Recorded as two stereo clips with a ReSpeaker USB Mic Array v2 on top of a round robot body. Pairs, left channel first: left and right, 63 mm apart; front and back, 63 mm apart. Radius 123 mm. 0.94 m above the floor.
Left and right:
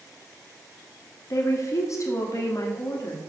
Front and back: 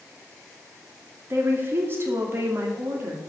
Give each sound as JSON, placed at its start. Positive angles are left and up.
{"t": 1.3, "sound": "a woman speaking", "azimuth_deg": 130, "distance_m": 2.5}